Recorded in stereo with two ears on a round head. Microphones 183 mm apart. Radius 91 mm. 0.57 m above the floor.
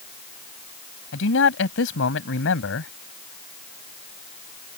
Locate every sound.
1.1 s a man speaking: 65° left (ahead or behind)